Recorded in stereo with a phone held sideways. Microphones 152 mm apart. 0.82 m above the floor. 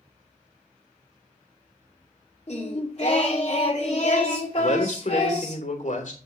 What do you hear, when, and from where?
2.5 s singing: 50° left (ahead or behind), 2.5 m
4.6 s a man speaking: 65° left (ahead or behind), 3 m